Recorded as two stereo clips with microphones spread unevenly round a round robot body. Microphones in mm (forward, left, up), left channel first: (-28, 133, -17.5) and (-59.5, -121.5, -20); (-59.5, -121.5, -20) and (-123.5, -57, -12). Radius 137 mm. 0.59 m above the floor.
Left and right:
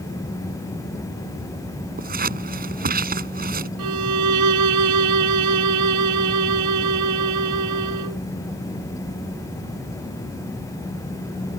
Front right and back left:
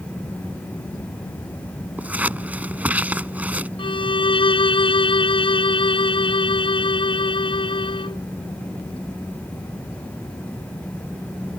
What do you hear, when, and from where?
2.0 s scissors: 150° right
3.8 s a violin: 70° right